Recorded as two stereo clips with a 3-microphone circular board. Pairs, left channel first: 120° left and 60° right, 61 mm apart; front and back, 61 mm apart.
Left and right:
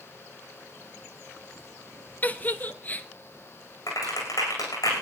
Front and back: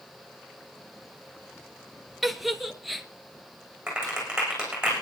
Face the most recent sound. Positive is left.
turn(degrees=105)